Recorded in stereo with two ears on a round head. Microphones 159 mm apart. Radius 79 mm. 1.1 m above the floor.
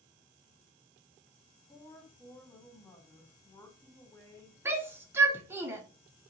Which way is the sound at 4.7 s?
15° right (ahead or behind).